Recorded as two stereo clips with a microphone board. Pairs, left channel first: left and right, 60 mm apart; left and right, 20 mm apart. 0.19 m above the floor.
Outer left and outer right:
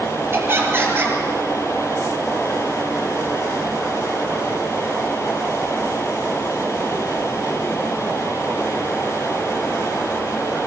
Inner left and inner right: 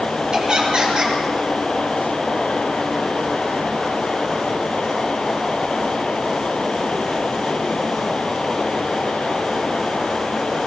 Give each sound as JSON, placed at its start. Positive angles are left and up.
{"t": 0.3, "sound": "laughter", "side_deg": -45, "distance_m": 4.0}